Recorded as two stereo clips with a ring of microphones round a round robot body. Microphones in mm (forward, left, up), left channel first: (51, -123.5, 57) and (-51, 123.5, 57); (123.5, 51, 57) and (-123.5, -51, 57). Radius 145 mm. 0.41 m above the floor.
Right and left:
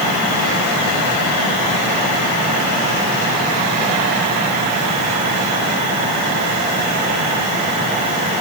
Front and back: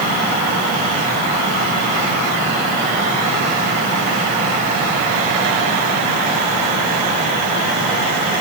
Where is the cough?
I don't hear a cough.